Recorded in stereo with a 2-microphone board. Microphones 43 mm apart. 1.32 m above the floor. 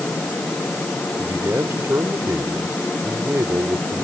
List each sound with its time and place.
1.2 s a man speaking: 80° right